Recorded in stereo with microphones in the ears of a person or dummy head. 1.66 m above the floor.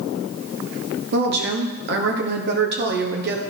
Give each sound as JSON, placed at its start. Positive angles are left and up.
{"t": 1.1, "sound": "a woman speaking", "side_deg": -60, "distance_m": 1.2}